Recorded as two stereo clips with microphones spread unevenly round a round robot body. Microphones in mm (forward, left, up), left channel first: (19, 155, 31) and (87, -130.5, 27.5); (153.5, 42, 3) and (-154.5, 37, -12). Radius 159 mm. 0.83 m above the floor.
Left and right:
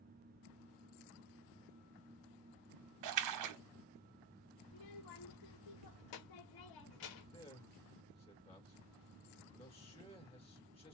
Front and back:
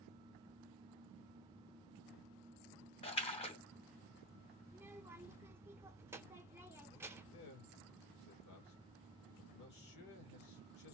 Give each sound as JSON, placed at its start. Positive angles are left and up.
{"t": 3.0, "sound": "a splash", "azimuth_deg": -70, "distance_m": 0.6}
{"t": 4.7, "sound": "a child speaking", "azimuth_deg": 100, "distance_m": 1.2}
{"t": 7.3, "sound": "a man speaking", "azimuth_deg": 35, "distance_m": 2.5}